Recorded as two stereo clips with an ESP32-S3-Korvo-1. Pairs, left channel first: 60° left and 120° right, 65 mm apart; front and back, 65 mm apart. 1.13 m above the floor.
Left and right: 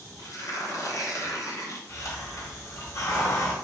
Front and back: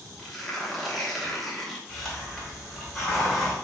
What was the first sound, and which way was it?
Tearing paper, 90° left.